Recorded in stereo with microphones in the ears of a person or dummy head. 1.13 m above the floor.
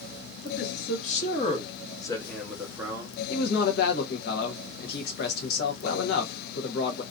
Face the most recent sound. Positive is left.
turn(degrees=60)  # may be behind; listen again after turning